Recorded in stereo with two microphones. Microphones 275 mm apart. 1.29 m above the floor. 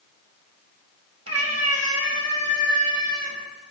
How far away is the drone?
I don't hear a drone.